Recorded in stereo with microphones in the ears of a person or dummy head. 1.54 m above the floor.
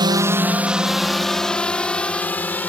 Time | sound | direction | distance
0.0 | a drone | 25° right (ahead or behind) | ?